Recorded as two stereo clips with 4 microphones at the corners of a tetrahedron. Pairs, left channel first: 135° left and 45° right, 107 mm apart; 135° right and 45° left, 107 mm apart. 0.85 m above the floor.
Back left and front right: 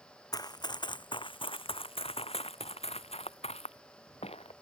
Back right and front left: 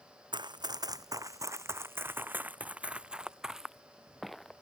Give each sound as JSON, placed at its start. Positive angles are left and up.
{"t": 0.3, "sound": "running footsteps", "azimuth_deg": 85}